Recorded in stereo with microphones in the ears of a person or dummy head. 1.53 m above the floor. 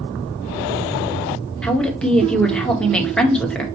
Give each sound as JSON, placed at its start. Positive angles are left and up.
{"t": 1.6, "sound": "a woman speaking", "side_deg": 5, "distance_m": 1.4}